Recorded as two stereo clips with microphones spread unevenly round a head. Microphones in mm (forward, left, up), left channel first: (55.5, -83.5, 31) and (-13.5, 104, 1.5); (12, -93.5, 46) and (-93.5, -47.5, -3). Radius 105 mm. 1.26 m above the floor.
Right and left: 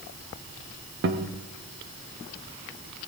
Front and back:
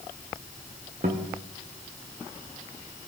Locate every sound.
1.0 s a guitar: 100° left, 1.0 m